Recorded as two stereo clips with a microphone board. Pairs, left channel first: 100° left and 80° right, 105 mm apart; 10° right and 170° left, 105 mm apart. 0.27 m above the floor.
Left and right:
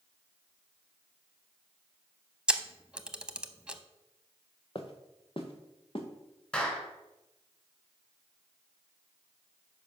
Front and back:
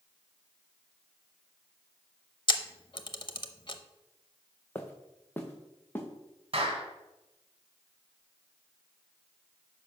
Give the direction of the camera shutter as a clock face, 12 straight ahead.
12 o'clock.